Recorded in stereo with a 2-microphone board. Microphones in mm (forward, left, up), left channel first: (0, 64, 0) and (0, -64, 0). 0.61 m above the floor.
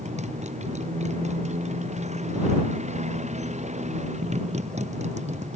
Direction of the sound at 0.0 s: 75° right (ahead or behind).